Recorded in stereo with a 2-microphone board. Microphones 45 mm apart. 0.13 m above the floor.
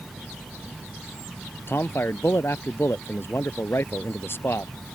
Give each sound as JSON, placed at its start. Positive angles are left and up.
{"t": 1.7, "sound": "a man speaking", "side_deg": 55}